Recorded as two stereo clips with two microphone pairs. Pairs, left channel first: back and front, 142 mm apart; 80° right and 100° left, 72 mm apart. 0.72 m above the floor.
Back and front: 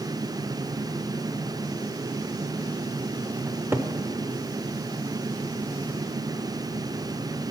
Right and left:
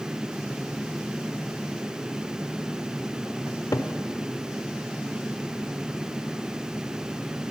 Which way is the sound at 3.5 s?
70° right.